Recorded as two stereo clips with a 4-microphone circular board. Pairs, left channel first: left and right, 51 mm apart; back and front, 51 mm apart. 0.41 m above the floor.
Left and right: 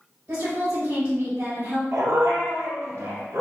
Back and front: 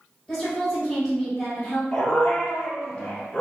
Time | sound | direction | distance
0.3 | a woman speaking | 105° right | 1.6 m
1.9 | a dog barking | 105° right | 1.0 m